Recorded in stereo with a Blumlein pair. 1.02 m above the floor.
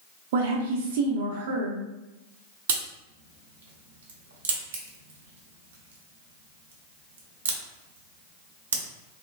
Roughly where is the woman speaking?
Ahead right.